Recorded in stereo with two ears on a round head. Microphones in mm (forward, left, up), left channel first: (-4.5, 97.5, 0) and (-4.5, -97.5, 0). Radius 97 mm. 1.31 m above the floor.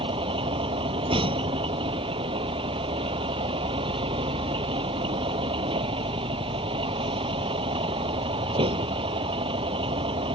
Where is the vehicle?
25° right (ahead or behind).